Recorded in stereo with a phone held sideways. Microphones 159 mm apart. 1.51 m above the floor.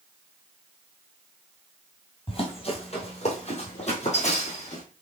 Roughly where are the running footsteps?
Left.